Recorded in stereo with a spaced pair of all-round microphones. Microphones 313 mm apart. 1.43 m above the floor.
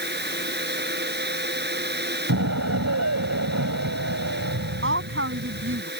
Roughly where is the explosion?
Right.